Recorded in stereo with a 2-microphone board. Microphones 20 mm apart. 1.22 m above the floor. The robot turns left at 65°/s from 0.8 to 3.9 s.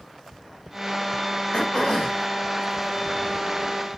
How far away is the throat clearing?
About 2.0 m.